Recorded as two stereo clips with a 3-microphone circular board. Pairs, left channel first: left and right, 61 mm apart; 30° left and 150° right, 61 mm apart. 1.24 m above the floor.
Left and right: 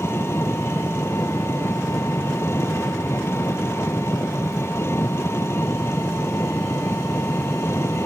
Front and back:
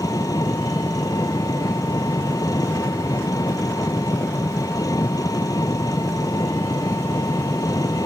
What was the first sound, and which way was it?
An engine running, 45° left.